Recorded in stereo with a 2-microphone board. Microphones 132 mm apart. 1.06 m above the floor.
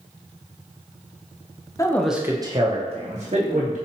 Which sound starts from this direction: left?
A man speaking, at 1.8 s.